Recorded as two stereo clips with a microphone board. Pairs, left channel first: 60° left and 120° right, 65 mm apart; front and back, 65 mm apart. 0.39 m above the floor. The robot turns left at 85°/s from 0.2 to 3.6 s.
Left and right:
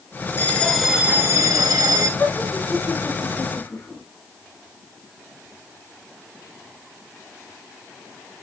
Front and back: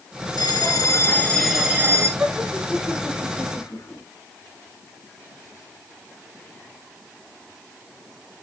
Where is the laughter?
120° left, 4 m; by 4.0 s straight ahead, 4 m.